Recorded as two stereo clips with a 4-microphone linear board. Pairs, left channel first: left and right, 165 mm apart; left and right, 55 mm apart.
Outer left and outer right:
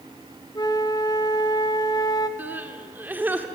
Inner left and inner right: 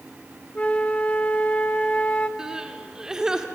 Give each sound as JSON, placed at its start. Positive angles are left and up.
{"t": 0.6, "sound": "a flute", "side_deg": 25, "distance_m": 1.4}
{"t": 2.4, "sound": "crying", "side_deg": -10, "distance_m": 1.9}